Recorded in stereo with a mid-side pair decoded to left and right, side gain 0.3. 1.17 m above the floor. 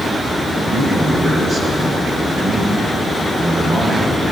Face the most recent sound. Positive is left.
turn(degrees=-70)